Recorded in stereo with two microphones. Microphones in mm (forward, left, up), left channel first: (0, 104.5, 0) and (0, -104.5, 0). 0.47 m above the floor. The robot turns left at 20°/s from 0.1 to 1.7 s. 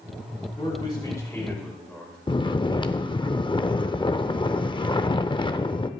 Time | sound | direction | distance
0.6 | a man speaking | 25° left (ahead or behind) | 5 m
2.3 | snoring | 20° left (ahead or behind) | 0.5 m